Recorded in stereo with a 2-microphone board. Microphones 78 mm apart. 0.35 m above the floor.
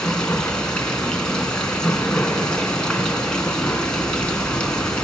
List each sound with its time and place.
0.0 s running water: 10° left (ahead or behind), 3 m